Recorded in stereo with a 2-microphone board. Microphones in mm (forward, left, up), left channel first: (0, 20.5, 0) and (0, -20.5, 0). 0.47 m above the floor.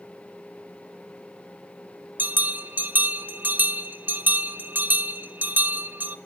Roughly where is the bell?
Right.